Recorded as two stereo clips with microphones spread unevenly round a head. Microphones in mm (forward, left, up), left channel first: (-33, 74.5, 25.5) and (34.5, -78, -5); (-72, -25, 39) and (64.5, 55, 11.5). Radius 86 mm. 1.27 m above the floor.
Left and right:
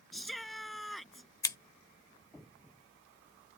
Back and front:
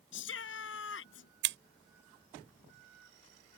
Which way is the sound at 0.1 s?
160° right.